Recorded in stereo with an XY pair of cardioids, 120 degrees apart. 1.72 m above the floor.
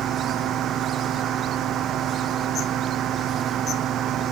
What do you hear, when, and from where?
0.0 s a fan: 60° right